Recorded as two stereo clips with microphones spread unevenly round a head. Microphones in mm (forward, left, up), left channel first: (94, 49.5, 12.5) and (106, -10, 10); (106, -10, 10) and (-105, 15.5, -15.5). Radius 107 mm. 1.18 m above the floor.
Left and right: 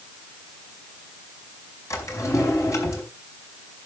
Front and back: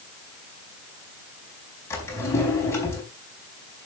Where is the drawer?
70° left, 4.5 m.